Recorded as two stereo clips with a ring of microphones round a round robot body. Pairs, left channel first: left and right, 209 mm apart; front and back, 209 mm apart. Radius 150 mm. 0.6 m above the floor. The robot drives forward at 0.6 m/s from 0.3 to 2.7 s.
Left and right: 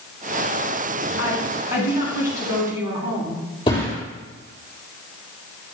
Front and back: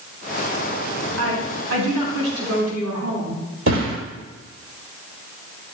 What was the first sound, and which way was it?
A woman speaking, 150° right.